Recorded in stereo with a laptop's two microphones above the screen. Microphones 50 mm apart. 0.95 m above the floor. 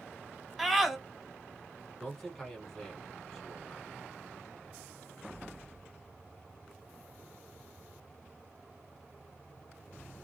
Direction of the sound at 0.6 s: 5° right (ahead or behind).